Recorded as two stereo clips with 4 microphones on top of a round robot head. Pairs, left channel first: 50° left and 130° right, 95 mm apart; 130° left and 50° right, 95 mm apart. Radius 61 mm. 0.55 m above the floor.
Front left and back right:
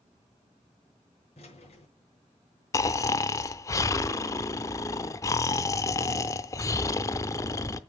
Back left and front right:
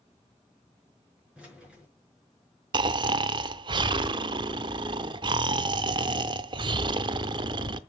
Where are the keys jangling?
30° left, 5.5 m.